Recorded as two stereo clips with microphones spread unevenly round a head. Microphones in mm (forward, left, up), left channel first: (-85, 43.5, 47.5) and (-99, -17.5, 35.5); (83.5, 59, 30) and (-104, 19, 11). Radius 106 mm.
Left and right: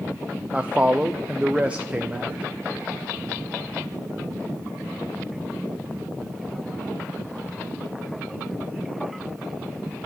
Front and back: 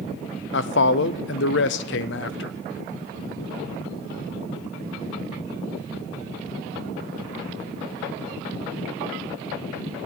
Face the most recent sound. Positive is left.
turn(degrees=-15)